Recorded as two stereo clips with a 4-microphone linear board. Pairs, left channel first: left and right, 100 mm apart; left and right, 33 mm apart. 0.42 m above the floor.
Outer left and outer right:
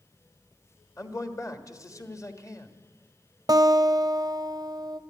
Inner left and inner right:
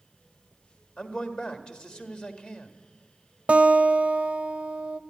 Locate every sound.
1.0 s a man speaking: 30° left (ahead or behind), 1.4 m
3.5 s a guitar: 40° right (ahead or behind), 0.5 m